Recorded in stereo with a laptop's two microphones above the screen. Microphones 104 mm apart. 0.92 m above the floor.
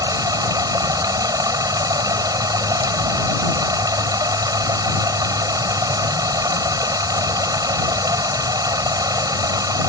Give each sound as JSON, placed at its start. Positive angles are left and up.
{"t": 0.0, "sound": "running water", "side_deg": -40}